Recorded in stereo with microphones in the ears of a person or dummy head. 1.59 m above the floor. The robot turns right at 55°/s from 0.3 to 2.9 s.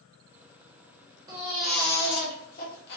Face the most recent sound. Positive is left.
turn(degrees=70)